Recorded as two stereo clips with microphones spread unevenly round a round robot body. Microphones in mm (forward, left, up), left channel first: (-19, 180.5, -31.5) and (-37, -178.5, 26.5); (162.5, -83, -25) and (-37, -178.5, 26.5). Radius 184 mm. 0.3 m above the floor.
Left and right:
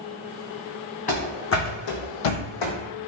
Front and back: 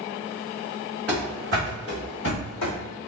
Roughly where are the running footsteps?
Behind.